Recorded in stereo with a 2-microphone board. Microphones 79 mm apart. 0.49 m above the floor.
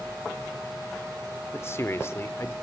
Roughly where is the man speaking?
Left.